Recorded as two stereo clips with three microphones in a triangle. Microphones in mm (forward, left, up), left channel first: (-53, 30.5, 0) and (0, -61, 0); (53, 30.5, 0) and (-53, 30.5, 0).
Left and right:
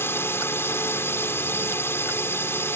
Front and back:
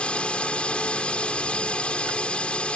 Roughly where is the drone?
Left.